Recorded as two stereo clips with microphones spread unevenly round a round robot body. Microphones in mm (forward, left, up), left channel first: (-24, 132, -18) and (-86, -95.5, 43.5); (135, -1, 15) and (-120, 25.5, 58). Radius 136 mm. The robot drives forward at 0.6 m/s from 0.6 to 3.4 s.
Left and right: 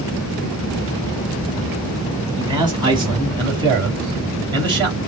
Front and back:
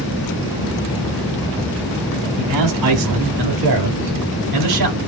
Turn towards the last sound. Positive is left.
turn(degrees=180)